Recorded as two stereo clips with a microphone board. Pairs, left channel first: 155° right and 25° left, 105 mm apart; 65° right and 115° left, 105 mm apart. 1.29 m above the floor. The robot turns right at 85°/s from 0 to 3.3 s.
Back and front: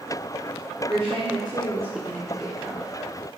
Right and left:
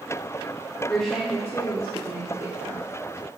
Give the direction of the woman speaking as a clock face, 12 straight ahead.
12 o'clock.